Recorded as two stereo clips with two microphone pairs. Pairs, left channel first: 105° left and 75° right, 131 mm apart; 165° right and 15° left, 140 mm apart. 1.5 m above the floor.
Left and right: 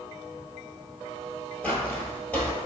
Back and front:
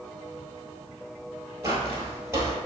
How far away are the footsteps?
About 1.6 m.